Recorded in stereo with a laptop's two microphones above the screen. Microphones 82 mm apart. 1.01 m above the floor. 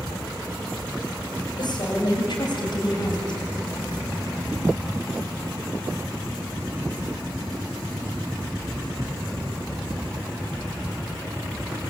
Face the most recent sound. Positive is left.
turn(degrees=65)  # may be behind; listen again after turning